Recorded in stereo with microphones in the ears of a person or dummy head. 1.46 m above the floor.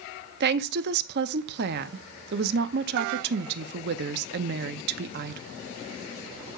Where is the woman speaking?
60° right (ahead or behind), 0.6 m.